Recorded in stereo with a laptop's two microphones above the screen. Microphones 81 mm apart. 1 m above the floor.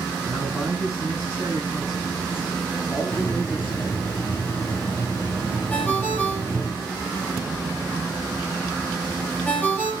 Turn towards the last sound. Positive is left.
turn(degrees=25)  # may be behind; listen again after turning